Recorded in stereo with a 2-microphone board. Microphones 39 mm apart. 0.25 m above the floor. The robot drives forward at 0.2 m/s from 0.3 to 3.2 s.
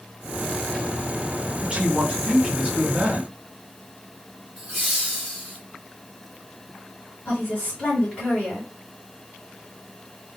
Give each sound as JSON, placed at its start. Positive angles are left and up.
{"t": 1.6, "sound": "a man speaking", "side_deg": -25, "distance_m": 1.0}
{"t": 4.6, "sound": "laughter", "side_deg": -10, "distance_m": 1.9}
{"t": 7.2, "sound": "a woman speaking", "side_deg": 25, "distance_m": 1.5}